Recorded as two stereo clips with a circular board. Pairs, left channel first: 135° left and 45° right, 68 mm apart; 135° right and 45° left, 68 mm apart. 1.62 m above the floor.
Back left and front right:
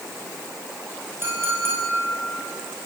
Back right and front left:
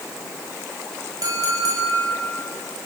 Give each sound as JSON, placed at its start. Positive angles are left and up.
{"t": 1.2, "sound": "a clink", "azimuth_deg": 10, "distance_m": 6.0}